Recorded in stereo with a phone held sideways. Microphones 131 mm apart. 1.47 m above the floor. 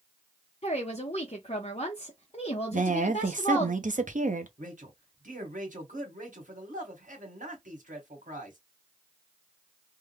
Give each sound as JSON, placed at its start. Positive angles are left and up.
{"t": 0.6, "sound": "a woman speaking", "side_deg": 50, "distance_m": 0.9}
{"t": 2.7, "sound": "a woman speaking", "side_deg": -75, "distance_m": 0.8}
{"t": 4.6, "sound": "a man speaking", "side_deg": -80, "distance_m": 1.7}